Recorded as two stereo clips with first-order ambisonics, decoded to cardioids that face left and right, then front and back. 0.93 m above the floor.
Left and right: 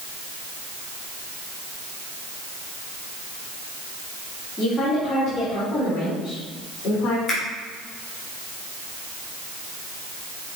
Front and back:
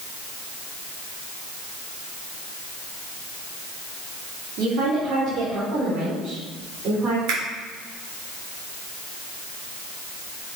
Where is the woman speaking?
150° left, 2.5 m; by 7.2 s 115° left, 4.5 m.